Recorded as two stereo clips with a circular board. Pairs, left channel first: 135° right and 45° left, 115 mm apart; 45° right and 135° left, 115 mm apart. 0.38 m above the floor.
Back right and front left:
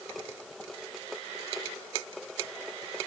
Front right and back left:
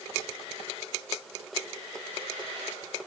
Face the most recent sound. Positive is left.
No sound to turn to.